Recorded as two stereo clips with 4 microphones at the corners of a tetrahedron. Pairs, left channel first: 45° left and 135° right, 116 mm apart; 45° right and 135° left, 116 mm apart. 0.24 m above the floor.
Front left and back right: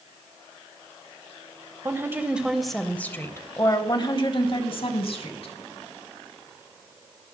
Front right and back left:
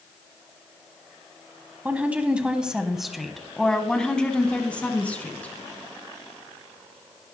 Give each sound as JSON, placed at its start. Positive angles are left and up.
{"t": 1.9, "sound": "a woman speaking", "azimuth_deg": -165, "distance_m": 1.2}